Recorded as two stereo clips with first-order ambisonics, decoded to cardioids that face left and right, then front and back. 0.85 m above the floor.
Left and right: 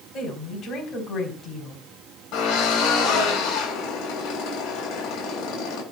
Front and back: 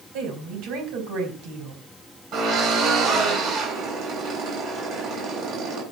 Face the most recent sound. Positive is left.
turn(degrees=130)